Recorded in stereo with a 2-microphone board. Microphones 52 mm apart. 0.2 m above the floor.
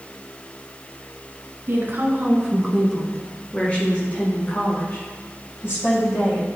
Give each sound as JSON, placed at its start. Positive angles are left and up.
{"t": 1.7, "sound": "a woman speaking", "side_deg": -50, "distance_m": 1.9}